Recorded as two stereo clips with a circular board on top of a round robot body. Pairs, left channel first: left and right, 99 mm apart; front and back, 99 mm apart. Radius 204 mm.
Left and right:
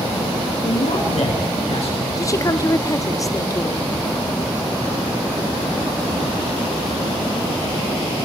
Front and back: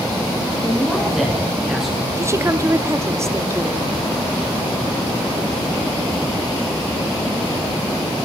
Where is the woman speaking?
130° left, 1.8 m.